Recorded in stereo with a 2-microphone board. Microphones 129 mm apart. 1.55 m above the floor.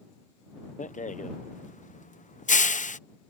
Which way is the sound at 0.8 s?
75° left (ahead or behind).